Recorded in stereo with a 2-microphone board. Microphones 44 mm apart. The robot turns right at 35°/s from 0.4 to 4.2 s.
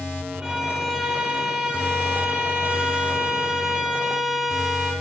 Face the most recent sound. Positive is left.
turn(degrees=-10)  # may be behind; listen again after turning